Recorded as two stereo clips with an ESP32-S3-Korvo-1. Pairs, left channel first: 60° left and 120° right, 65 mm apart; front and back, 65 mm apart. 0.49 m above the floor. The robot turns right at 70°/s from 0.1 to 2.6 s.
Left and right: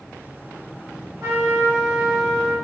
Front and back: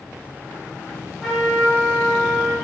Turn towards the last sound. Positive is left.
turn(degrees=5)